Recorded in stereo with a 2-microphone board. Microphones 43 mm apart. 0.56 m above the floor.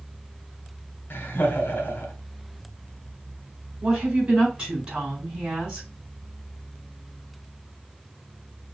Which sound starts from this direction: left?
Laughter, at 1.1 s.